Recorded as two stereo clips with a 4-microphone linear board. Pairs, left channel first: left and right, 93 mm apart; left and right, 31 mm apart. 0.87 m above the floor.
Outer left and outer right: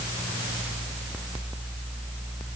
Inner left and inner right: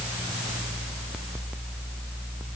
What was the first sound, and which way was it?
Only background noise.